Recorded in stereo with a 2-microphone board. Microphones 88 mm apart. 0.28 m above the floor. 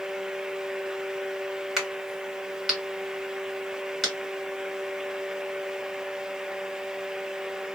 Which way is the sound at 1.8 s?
Centre (ahead or behind).